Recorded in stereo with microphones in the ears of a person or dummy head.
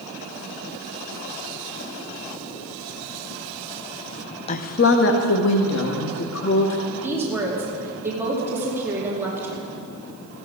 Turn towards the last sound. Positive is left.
turn(degrees=-15)  # may be behind; listen again after turning